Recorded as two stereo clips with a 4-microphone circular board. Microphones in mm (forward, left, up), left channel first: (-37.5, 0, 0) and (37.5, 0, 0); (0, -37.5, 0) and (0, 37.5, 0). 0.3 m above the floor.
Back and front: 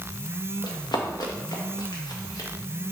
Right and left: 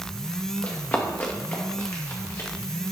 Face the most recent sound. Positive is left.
turn(degrees=-140)